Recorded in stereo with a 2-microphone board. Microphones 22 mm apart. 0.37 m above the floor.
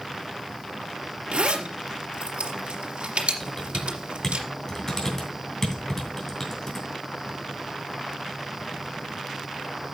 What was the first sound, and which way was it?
A zipper, 60° right (ahead or behind).